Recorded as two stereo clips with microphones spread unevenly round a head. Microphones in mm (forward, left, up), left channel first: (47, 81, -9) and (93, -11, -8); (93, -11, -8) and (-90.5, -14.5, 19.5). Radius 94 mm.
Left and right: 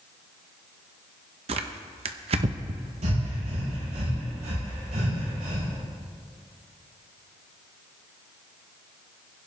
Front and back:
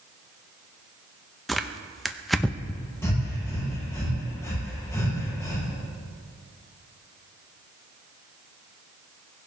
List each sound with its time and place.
1.5 s tearing paper: 95° right, 0.7 m
3.0 s breathing: 75° right, 6.5 m